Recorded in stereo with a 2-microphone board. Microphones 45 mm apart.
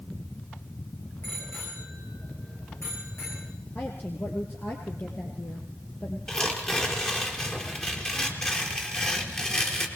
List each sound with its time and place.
1.2 s a bicycle bell: 55° left (ahead or behind), 9.5 m; by 3.5 s 60° left (ahead or behind), 10 m
3.8 s a woman speaking: 45° left (ahead or behind), 3.5 m
6.3 s tearing paper: 20° left (ahead or behind), 4.5 m